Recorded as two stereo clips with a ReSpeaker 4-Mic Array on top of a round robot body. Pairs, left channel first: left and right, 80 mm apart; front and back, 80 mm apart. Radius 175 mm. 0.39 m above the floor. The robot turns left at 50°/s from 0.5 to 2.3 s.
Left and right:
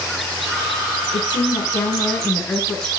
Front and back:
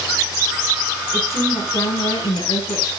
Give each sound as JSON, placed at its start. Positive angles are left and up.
{"t": 1.1, "sound": "a woman speaking", "azimuth_deg": 70, "distance_m": 6.5}